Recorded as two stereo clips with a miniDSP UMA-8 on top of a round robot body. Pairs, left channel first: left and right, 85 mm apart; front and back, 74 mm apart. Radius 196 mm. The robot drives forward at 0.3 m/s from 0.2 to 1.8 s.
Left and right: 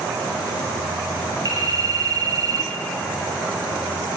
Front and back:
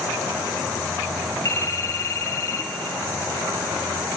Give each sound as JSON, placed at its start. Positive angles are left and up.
{"t": 1.4, "sound": "a phone ringing", "azimuth_deg": -50, "distance_m": 2.5}